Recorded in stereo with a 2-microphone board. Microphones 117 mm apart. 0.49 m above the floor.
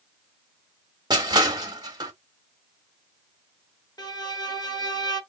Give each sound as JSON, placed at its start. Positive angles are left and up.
{"t": 1.1, "sound": "crushing", "side_deg": -35, "distance_m": 1.0}
{"t": 4.0, "sound": "a violin", "side_deg": 35, "distance_m": 1.5}